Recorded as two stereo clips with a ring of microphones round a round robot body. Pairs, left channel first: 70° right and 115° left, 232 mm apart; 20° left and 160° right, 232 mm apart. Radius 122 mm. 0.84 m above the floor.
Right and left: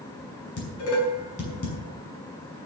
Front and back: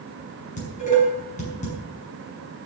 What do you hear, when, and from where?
0.6 s dishes clattering: 35° right, 6 m